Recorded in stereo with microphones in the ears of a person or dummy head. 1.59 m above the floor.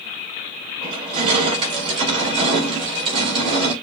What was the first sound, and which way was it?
Crushing, 30° right (ahead or behind).